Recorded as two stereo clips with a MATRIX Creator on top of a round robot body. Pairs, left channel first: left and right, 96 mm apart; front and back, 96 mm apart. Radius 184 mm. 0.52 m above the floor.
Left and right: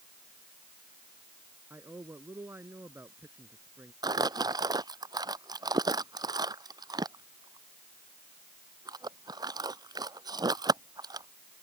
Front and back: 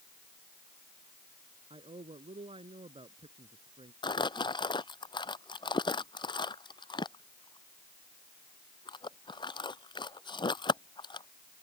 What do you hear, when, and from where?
1.7 s a man speaking: 155° right
4.0 s crumpling: 40° right